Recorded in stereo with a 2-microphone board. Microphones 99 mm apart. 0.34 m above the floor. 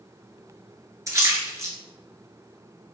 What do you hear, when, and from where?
1.1 s a splash: 30° right (ahead or behind), 0.9 m